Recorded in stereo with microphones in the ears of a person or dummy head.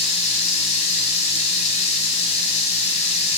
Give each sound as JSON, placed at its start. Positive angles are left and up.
{"t": 0.0, "sound": "running water", "side_deg": 40, "distance_m": 0.8}